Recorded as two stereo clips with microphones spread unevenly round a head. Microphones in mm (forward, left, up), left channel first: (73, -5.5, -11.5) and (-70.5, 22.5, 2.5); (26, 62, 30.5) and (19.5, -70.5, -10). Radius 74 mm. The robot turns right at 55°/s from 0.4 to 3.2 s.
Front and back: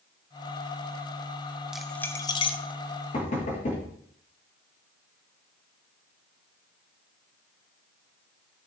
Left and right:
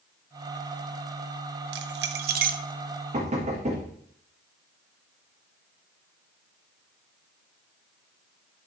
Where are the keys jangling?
110° right, 0.6 m; by 2.6 s 60° right, 0.6 m.